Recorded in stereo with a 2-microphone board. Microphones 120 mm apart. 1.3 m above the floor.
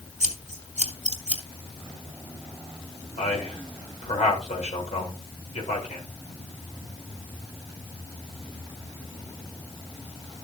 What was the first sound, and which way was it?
Scissors, 85° right.